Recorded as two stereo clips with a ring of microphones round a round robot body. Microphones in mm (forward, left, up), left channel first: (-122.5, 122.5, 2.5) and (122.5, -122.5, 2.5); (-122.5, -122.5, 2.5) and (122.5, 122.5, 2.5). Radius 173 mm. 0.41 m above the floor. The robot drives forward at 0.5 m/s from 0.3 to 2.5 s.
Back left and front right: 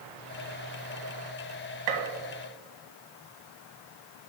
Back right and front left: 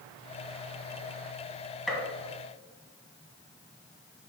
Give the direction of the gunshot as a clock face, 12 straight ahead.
1 o'clock.